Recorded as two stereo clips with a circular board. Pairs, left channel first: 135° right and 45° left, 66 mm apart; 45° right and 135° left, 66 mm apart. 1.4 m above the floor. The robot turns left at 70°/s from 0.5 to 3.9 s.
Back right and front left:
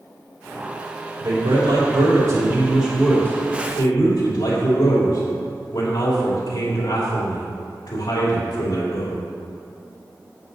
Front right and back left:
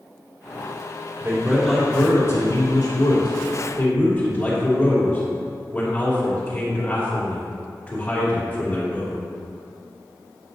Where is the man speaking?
80° left, 3 m; by 9.2 s 110° right, 3 m.